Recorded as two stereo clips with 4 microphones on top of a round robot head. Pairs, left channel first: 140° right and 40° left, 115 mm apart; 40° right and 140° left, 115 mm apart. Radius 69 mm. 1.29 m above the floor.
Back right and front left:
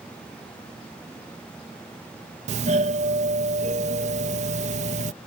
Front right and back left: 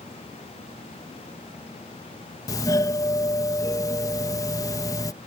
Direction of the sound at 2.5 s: 20° left.